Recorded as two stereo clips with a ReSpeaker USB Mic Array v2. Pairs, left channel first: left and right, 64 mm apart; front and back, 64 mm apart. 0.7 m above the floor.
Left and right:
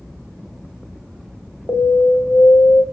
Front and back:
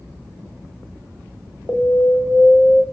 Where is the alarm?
55° left, 1.8 m.